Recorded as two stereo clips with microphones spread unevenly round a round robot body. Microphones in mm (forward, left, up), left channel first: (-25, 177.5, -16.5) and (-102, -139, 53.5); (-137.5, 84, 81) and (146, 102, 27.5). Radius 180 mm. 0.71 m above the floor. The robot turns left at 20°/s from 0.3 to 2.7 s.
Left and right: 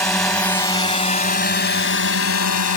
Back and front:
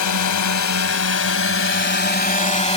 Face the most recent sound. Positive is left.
turn(degrees=115)